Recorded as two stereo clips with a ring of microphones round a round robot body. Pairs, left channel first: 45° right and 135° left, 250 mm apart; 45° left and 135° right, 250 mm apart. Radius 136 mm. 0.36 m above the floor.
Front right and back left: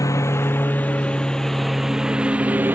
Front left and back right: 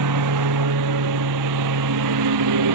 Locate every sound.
0.0 s a lawn mower: 125° right; by 2.8 s 140° right